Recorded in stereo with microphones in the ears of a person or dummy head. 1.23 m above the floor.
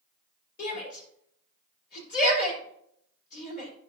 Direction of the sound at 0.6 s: 55° left (ahead or behind).